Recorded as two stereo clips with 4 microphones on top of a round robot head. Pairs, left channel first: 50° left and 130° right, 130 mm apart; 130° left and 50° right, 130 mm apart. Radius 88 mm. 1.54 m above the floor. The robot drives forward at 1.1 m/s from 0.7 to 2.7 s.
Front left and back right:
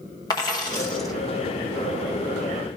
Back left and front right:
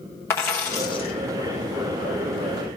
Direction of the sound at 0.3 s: 80° left.